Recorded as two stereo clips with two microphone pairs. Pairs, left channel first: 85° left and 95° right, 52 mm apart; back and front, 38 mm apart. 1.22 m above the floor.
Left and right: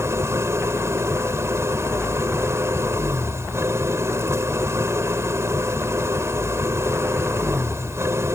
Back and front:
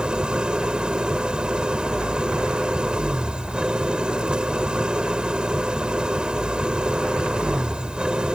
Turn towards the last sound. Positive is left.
turn(degrees=-65)